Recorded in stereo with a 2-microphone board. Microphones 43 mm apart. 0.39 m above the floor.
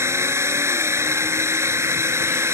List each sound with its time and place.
0.0 s a drone: 75° right (ahead or behind)